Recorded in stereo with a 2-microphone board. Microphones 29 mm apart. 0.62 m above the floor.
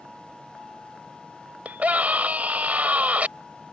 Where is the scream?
55° right (ahead or behind).